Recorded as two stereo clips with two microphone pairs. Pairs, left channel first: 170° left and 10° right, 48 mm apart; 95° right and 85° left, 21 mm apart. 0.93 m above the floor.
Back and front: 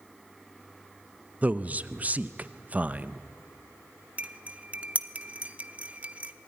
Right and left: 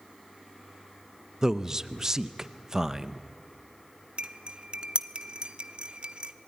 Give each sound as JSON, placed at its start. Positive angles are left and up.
{"t": 1.4, "sound": "a man speaking", "azimuth_deg": 35, "distance_m": 0.8}
{"t": 4.2, "sound": "cutlery clinking", "azimuth_deg": 55, "distance_m": 0.9}